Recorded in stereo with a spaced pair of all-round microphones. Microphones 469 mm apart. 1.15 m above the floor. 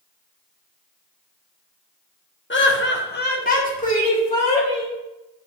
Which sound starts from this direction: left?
Laughter, at 2.5 s.